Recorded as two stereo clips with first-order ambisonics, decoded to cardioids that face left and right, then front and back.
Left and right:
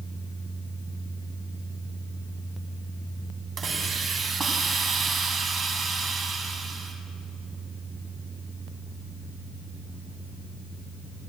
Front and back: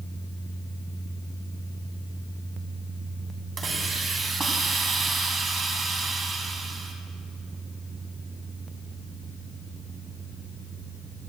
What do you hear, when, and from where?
3.6 s a hiss: 135° right, 1.8 m